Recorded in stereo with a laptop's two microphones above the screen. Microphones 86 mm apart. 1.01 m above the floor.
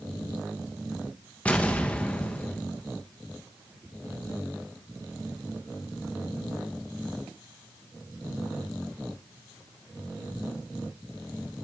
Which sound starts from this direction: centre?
An explosion, at 1.4 s.